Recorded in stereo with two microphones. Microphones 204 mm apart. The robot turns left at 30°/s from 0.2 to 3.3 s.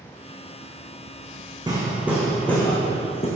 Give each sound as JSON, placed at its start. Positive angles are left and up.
{"t": 1.7, "sound": "hammering", "azimuth_deg": -160, "distance_m": 4.0}